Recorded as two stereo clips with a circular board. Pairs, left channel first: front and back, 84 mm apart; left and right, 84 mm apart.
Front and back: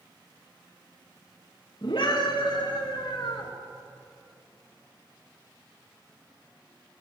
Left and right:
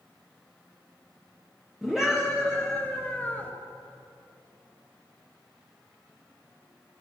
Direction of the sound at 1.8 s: 5° right.